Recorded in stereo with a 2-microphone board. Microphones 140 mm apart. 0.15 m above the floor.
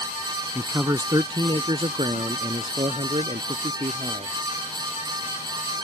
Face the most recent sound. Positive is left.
turn(degrees=-50)  # may be behind; listen again after turning